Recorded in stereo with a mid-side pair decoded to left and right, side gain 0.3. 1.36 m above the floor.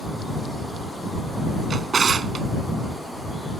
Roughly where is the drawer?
Ahead right.